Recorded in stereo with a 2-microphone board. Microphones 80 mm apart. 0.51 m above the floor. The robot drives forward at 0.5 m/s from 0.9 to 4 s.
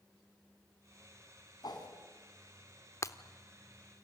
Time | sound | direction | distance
1.6 | a whoosh | 60° left (ahead or behind) | 3.5 m
3.0 | breaking glass | 40° left (ahead or behind) | 0.8 m